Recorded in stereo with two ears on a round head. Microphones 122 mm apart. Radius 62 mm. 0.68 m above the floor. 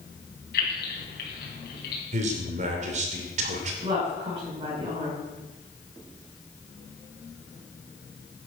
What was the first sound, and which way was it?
Keys jangling, 85° left.